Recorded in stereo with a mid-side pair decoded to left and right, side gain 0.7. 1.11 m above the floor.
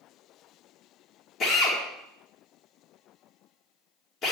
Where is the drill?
40° left, 3 m.